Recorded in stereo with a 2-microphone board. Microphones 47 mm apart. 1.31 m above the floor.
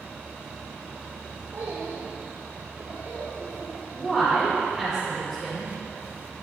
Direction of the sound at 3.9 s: 5° right (ahead or behind).